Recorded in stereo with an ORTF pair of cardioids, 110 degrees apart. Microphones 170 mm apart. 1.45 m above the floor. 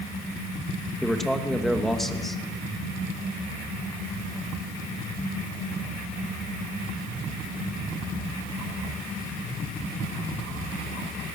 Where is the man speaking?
Straight ahead, 2.5 m.